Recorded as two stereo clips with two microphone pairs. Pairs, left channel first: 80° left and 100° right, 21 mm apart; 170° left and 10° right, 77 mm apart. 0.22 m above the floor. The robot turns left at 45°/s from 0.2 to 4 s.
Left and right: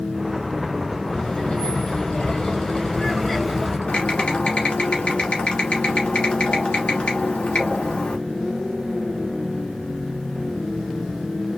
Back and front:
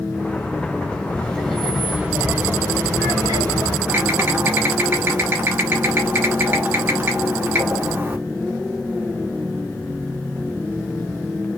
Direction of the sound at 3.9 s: 55° left.